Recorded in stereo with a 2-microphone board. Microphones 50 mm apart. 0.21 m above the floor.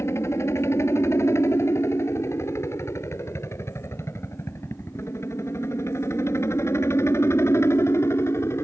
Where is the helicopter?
65° left (ahead or behind); by 8.6 s 60° left (ahead or behind).